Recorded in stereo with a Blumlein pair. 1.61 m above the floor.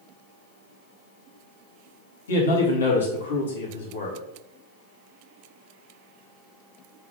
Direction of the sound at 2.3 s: 65° left.